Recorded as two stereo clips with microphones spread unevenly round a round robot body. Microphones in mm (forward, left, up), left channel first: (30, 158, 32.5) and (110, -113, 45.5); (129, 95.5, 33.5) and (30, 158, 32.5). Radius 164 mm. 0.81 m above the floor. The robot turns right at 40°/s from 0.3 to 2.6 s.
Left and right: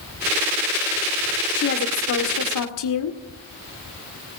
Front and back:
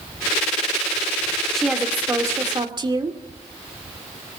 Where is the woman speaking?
55° left, 2.0 m; by 3.2 s 95° left, 2.0 m.